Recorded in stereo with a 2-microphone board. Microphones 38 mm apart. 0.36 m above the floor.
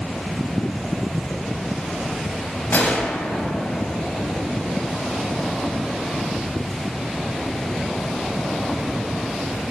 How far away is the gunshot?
About 0.6 m.